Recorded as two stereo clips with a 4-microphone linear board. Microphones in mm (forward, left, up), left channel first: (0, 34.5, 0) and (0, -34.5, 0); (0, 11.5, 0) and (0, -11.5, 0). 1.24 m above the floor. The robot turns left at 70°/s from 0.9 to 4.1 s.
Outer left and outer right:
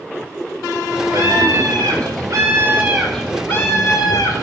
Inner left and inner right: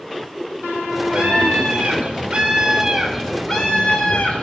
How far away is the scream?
About 5 m.